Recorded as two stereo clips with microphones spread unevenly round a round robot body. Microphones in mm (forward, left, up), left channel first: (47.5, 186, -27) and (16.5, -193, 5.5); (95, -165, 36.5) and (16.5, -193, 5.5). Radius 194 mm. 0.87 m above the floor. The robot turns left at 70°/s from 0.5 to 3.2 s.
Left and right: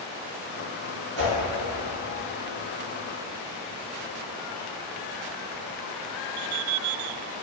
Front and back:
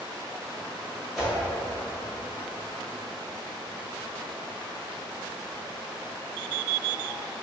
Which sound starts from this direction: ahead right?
A whoosh, at 1.2 s.